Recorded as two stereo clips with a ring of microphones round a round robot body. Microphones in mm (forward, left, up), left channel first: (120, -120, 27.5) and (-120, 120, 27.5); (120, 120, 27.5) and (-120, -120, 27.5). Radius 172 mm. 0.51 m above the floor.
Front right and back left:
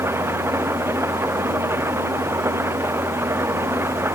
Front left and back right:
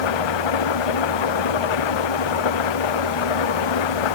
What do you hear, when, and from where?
0.0 s an engine running: 50° left